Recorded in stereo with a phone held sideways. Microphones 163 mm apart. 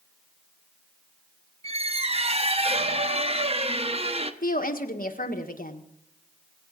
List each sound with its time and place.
1.6 s a squeak: 40° right (ahead or behind), 0.9 m
4.4 s a woman speaking: 60° left (ahead or behind), 1.6 m